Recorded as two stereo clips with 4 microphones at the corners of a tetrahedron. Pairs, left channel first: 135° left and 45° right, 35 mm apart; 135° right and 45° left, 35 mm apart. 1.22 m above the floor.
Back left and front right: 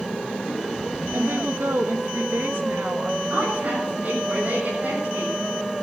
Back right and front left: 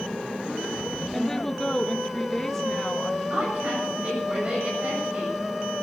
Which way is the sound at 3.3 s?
5° right.